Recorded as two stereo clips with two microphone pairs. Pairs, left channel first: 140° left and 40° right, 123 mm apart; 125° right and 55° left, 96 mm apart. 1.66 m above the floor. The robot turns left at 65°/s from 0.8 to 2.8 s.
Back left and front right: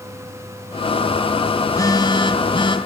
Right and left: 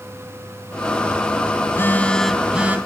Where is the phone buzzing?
165° right, 2 m; by 2.8 s 120° left, 2 m.